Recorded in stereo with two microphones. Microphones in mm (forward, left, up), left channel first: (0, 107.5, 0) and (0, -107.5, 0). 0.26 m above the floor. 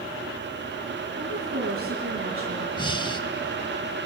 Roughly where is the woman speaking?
Right.